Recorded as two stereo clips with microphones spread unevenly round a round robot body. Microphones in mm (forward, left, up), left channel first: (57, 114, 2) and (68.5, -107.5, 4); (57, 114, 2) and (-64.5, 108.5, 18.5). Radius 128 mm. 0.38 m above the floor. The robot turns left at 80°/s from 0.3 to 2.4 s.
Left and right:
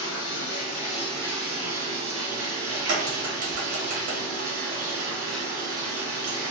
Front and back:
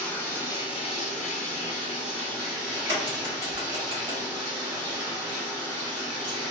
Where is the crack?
95° right, 1.0 m.